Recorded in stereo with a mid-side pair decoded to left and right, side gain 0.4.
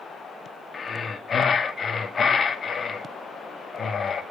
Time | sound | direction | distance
0.7 | breathing | 40° left | 1.4 m